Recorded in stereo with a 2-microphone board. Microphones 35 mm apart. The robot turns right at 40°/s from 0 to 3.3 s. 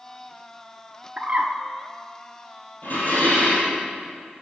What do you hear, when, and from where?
1.2 s a bird: 35° right (ahead or behind), 0.9 m; by 1.5 s 50° right (ahead or behind), 0.9 m
2.8 s dishes clattering: 60° left (ahead or behind), 3.5 m; by 3.8 s 45° left (ahead or behind), 3.5 m